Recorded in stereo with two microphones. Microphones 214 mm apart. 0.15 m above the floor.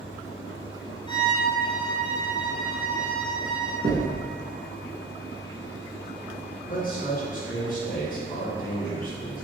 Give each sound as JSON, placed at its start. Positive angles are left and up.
{"t": 1.1, "sound": "a violin", "side_deg": 20, "distance_m": 1.1}
{"t": 3.8, "sound": "knocking", "side_deg": -45, "distance_m": 1.0}
{"t": 6.7, "sound": "a man speaking", "side_deg": 45, "distance_m": 1.9}